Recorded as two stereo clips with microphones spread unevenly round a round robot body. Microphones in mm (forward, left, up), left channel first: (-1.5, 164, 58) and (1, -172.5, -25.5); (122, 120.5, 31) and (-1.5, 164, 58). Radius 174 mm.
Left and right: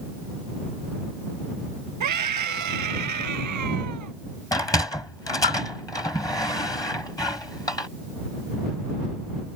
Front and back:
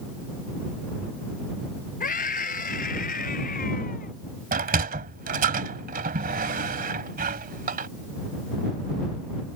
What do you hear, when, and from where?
2.0 s a scream: 50° right
4.5 s a sliding door: 175° left